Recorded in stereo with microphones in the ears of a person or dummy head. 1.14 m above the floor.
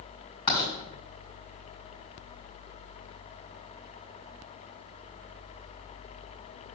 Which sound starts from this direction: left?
Writing, at 0.5 s.